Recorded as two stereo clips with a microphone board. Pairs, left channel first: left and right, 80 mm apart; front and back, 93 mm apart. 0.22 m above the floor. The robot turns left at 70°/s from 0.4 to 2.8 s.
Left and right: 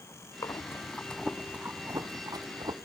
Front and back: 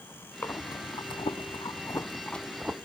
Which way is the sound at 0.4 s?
60° left.